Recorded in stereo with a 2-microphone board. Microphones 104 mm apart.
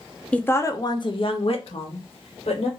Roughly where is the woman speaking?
Centre.